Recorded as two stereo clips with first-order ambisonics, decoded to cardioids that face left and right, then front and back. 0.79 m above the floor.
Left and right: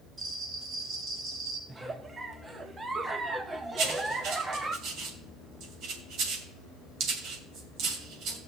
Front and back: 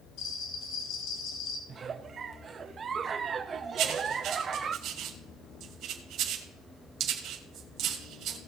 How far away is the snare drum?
I don't hear a snare drum.